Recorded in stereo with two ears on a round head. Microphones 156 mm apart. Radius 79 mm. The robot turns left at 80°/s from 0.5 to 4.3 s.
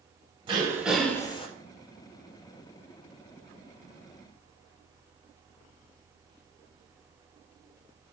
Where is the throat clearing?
145° right, 0.6 m; by 1.5 s 135° left, 0.6 m.